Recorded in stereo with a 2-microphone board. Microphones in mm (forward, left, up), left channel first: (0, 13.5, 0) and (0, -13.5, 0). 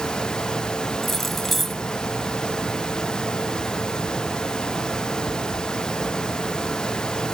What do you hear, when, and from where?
1.0 s keys jangling: 5° left (ahead or behind)